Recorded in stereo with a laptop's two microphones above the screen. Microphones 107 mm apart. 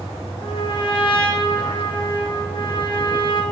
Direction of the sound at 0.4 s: 50° left (ahead or behind).